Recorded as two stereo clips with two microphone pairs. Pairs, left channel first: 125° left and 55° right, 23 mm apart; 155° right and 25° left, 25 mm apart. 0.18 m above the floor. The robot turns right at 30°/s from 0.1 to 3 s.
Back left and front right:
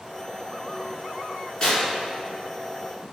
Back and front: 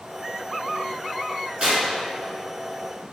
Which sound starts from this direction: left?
Tearing paper, at 1.6 s.